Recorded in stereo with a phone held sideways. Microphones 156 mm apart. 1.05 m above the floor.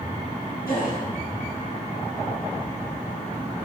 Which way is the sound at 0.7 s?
75° left (ahead or behind).